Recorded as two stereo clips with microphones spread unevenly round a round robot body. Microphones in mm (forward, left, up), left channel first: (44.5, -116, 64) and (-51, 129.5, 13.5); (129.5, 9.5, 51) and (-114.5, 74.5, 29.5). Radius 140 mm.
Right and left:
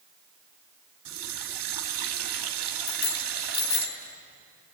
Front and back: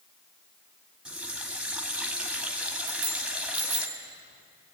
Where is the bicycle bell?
115° right, 4.5 m.